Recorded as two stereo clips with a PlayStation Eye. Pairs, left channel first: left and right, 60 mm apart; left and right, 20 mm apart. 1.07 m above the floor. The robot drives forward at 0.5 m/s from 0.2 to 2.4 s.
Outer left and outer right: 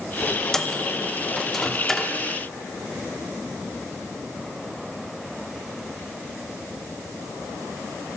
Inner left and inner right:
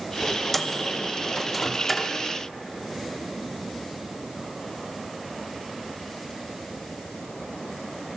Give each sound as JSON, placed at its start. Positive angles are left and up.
{"t": 0.5, "sound": "a microwave", "side_deg": 10, "distance_m": 1.2}